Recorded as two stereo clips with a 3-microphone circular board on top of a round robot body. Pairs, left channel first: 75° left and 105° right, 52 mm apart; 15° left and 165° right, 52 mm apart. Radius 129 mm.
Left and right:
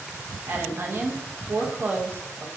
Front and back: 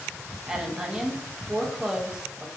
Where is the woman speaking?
95° right, 0.8 m.